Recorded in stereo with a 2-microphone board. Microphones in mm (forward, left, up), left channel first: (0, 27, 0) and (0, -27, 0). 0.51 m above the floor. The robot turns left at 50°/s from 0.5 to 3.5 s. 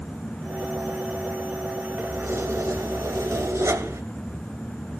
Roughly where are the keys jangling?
Ahead right.